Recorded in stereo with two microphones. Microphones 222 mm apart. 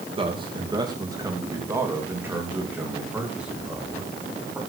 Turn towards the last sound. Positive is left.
turn(degrees=0)  # may be behind; listen again after turning